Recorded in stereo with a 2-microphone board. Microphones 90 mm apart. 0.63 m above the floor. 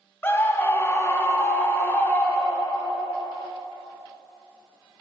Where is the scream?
25° left (ahead or behind), 1.0 m; by 3.0 s 20° left (ahead or behind), 1.9 m.